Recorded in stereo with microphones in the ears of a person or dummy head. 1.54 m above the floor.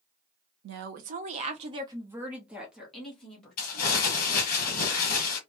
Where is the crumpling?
50° left (ahead or behind), 1.5 m.